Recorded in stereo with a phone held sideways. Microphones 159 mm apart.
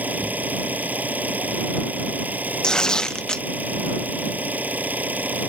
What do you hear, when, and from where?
0.0 s an engine running: 10° right (ahead or behind)
2.6 s tearing paper: 5° left (ahead or behind)